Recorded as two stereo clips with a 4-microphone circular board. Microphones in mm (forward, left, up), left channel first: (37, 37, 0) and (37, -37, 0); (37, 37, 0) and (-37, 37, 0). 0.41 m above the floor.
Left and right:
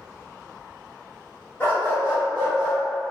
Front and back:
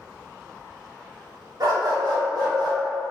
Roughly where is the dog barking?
Behind left.